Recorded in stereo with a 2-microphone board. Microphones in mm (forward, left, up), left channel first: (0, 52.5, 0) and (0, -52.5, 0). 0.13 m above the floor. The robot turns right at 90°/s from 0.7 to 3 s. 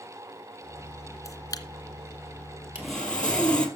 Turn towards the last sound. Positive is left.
turn(degrees=10)  # may be behind; listen again after turning